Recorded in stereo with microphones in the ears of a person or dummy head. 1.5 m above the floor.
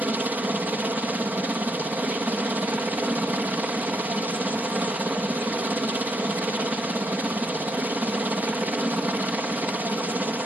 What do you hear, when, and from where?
0.0 s a helicopter: 10° right (ahead or behind)